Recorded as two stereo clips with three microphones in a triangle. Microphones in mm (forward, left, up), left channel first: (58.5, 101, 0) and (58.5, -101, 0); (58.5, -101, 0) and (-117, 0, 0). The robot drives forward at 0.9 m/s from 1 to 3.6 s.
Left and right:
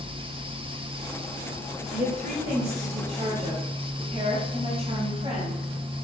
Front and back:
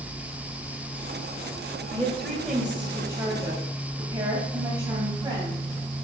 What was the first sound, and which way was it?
A woman speaking, 105° right.